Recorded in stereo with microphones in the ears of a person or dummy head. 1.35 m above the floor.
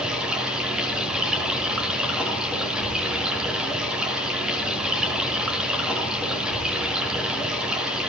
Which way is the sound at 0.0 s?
5° right (ahead or behind).